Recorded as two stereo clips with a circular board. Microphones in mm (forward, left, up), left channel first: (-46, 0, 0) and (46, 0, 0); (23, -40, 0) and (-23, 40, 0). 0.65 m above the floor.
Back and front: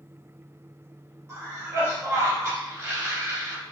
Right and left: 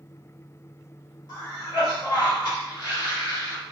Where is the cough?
45° right, 1.8 m.